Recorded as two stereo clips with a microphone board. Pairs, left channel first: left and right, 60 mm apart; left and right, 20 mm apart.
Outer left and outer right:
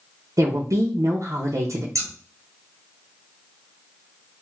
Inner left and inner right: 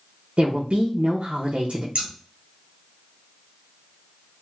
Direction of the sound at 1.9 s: 65° right (ahead or behind).